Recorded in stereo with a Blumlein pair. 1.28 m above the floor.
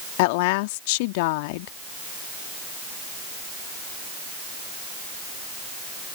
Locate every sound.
0.2 s a woman speaking: 50° left